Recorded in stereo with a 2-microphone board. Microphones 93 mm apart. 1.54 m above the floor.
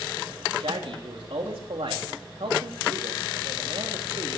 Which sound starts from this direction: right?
A man speaking, at 0.6 s.